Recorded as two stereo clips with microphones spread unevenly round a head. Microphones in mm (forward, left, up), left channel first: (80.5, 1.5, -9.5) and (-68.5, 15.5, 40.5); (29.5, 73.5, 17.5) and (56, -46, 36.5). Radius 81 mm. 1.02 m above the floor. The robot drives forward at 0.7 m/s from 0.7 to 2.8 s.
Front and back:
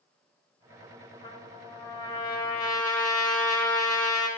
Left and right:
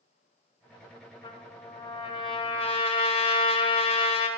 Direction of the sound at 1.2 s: 55° left.